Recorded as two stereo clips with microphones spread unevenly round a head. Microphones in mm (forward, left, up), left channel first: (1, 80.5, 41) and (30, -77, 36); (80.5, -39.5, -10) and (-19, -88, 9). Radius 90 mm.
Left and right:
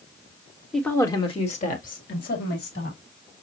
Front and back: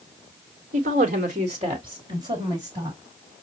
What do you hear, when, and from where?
0.7 s a woman speaking: 170° right, 1.2 m; by 3.0 s 125° left, 3 m